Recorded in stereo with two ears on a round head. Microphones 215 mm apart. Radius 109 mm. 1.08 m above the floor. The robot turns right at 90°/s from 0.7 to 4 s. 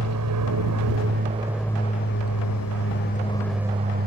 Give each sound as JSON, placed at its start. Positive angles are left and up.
{"t": 0.0, "sound": "an aircraft", "side_deg": -75}